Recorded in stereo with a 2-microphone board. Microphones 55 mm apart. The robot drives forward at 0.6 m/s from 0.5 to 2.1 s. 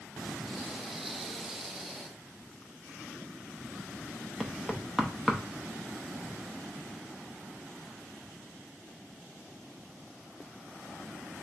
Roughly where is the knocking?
Centre.